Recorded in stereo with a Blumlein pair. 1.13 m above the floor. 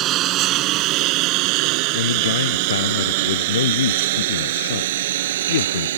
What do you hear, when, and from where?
0.0 s a lawn mower: 35° right; by 6.0 s 60° right
1.9 s a man speaking: 65° left